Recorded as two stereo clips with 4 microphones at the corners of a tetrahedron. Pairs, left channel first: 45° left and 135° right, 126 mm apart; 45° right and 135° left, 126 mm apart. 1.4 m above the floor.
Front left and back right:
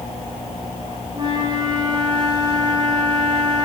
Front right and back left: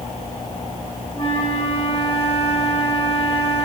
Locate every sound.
1.1 s a flute: 85° right, 6 m